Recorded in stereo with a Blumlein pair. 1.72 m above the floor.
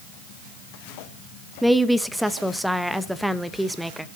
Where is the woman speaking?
5° right, 0.9 m.